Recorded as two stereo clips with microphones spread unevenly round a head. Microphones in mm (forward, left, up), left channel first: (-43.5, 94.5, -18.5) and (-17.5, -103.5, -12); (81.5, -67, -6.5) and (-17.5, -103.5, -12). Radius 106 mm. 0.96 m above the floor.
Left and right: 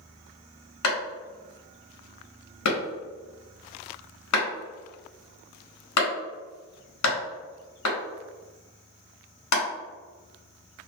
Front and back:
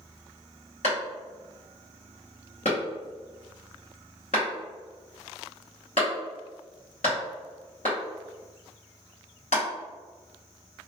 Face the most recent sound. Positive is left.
turn(degrees=85)